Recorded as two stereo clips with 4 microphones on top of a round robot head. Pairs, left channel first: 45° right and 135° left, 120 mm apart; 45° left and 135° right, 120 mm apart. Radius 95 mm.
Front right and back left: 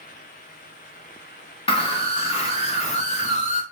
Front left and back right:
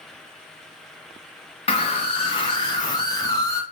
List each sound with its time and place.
1.7 s a scream: straight ahead, 4 m; by 3.6 s 25° right, 3 m